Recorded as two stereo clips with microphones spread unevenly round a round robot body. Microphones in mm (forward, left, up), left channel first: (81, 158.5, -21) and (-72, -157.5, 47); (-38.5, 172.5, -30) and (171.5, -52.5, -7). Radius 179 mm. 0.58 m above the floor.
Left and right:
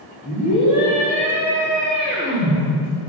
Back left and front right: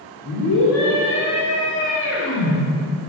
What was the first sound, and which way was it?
A scream, 105° left.